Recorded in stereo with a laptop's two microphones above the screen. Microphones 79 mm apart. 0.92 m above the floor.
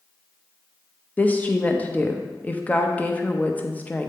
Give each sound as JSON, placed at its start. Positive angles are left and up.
{"t": 1.2, "sound": "a woman speaking", "side_deg": 20, "distance_m": 0.7}